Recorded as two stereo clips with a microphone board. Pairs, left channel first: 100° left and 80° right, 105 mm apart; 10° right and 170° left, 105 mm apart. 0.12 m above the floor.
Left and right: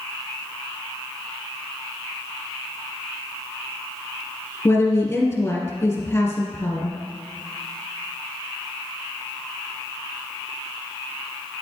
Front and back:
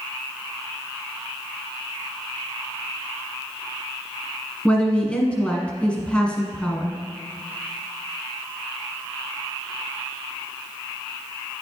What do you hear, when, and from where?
4.7 s a woman speaking: 55° left, 1.4 m